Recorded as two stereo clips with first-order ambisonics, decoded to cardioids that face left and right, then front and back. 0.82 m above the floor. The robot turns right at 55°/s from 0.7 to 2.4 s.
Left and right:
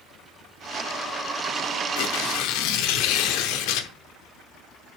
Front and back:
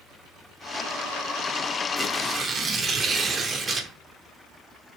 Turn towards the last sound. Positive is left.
turn(degrees=110)